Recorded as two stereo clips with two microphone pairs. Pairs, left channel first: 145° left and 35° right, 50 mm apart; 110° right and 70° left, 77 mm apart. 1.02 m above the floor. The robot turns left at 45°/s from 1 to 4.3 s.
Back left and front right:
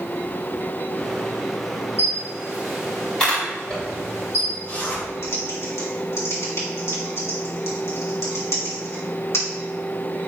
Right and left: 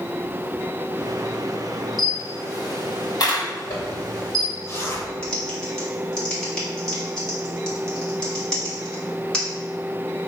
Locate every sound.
2.0 s a camera shutter: 90° right, 3 m; by 4.5 s 165° left, 3 m
3.7 s a zipper: 140° right, 2.5 m; by 5.0 s 170° right, 2.5 m
5.2 s typing on a keyboard: 170° left, 2.5 m